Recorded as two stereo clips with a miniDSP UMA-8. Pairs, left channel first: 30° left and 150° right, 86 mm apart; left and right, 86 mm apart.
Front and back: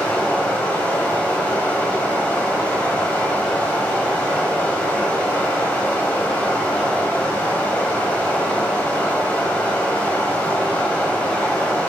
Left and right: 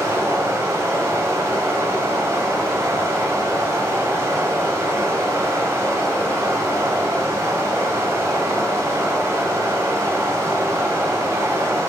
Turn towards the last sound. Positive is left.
turn(degrees=-40)